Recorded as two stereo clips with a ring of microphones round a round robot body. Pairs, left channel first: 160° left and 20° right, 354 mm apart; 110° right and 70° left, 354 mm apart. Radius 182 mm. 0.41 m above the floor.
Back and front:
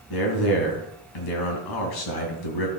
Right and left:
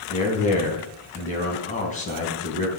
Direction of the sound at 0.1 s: Straight behind.